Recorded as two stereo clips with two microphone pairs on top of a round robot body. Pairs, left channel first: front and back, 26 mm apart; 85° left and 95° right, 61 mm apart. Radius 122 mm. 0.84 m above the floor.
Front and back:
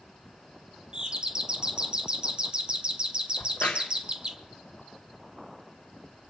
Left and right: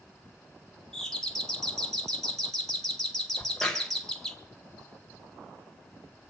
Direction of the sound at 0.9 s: 155° left.